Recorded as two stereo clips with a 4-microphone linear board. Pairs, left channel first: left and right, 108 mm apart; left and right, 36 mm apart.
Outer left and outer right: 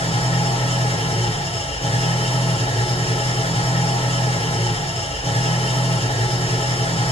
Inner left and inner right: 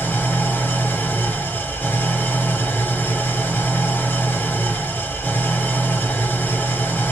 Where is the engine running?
70° left (ahead or behind), 2 m.